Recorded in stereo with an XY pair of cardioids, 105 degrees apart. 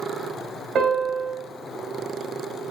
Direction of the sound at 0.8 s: 50° right.